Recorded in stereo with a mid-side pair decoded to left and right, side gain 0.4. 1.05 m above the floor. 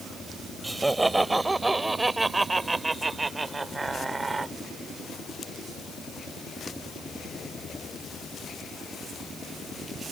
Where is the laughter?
20° right; by 4.5 s 30° right.